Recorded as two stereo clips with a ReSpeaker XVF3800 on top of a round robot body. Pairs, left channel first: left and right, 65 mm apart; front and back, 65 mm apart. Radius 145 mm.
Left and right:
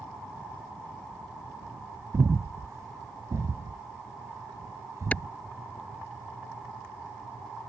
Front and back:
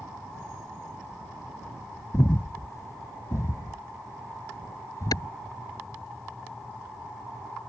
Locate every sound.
2.1 s breathing: 45° right
5.1 s a clap: 20° left